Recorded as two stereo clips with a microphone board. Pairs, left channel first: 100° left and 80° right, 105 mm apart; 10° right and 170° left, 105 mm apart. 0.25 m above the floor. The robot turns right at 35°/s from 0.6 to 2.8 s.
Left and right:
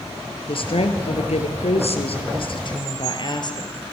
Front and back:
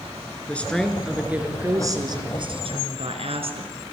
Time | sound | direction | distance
0.5 | a woman speaking | 70° left | 4 m